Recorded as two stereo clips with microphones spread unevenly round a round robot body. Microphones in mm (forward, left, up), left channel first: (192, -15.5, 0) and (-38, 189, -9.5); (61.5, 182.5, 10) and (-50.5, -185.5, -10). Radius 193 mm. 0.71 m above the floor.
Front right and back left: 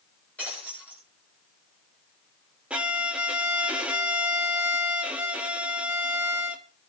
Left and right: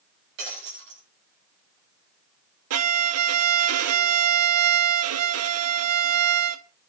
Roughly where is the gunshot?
No gunshot in this recording.